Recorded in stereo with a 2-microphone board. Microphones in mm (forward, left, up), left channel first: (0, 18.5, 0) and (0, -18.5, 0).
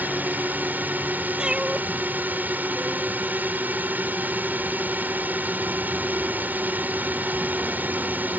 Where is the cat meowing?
20° right (ahead or behind).